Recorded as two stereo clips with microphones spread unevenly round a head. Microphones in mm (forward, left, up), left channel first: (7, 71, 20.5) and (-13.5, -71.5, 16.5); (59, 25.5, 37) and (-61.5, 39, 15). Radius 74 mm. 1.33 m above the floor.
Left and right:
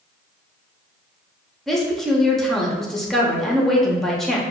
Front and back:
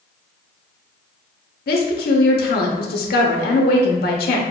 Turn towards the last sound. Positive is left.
turn(degrees=-5)